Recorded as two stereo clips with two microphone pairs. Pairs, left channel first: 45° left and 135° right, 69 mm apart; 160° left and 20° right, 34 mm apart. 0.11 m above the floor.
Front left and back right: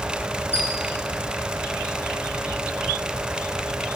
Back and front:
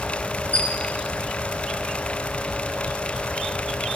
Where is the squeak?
175° left, 3.5 m.